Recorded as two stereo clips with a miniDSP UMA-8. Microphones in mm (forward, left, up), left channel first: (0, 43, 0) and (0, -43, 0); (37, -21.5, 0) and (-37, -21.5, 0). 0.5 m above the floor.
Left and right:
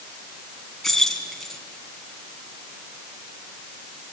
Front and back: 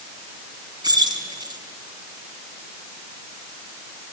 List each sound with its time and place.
0.8 s keys jangling: 175° left, 3.5 m